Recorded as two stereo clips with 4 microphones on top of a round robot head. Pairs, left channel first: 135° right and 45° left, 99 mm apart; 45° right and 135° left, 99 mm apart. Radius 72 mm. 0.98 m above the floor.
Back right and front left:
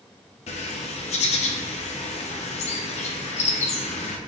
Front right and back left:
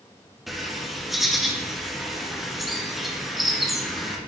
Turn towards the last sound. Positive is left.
turn(degrees=-135)